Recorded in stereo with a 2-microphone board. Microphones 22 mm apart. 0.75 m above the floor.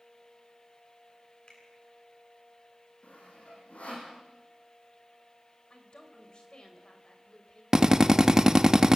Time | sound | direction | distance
1.5 | a finger snap | 35° left (ahead or behind) | 9.5 m
3.0 | sawing | 75° left (ahead or behind) | 8.5 m
5.7 | a woman speaking | 50° left (ahead or behind) | 4 m
7.7 | a drill | 20° right (ahead or behind) | 1.3 m